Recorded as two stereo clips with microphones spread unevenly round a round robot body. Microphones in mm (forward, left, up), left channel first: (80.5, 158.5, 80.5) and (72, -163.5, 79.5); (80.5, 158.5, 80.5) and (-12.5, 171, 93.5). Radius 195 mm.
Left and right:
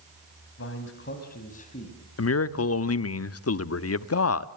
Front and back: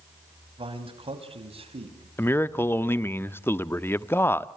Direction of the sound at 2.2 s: 50° left.